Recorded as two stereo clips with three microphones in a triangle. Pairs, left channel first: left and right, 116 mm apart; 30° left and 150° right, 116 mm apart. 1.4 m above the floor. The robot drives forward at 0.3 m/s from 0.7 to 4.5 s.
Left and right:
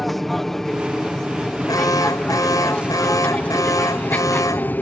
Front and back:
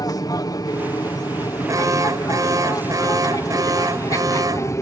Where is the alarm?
150° left.